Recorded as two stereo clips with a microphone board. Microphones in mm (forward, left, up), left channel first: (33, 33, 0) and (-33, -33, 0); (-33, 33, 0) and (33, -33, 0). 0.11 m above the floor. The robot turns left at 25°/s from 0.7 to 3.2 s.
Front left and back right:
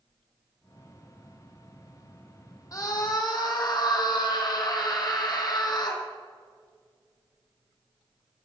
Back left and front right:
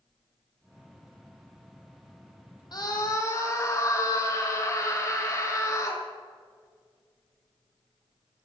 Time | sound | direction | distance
2.7 | a scream | 95° left | 4 m